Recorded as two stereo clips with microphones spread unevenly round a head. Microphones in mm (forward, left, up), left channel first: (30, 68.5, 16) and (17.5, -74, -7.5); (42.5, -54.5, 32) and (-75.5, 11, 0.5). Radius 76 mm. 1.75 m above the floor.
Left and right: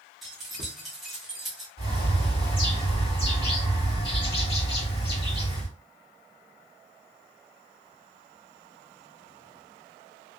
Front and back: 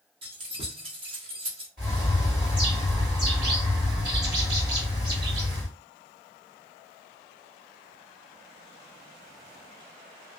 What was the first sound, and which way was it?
Keys jangling, 155° left.